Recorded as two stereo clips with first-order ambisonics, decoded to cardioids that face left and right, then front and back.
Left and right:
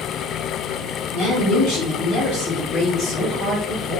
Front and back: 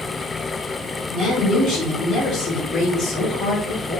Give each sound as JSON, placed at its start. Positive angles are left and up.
{"t": 1.1, "sound": "a woman speaking", "azimuth_deg": 75, "distance_m": 0.9}